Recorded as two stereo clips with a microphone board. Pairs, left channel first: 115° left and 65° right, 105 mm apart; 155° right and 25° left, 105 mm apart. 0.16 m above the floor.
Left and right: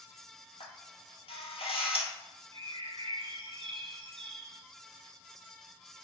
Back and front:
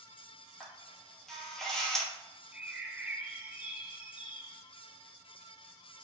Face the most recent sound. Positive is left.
turn(degrees=-55)